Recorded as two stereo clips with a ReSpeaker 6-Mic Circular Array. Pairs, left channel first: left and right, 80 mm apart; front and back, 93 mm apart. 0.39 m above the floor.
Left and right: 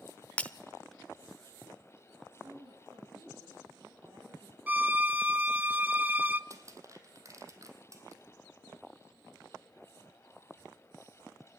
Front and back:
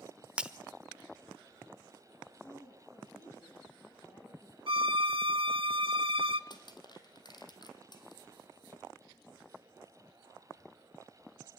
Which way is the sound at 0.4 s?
125° left.